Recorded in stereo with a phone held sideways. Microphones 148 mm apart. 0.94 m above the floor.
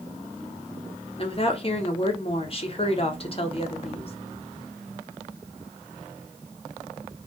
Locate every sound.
1.2 s a woman speaking: 40° left (ahead or behind), 0.7 m